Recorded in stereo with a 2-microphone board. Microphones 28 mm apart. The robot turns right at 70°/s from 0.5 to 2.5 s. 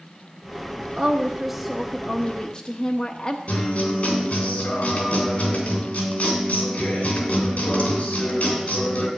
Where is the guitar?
60° left (ahead or behind), 3 m.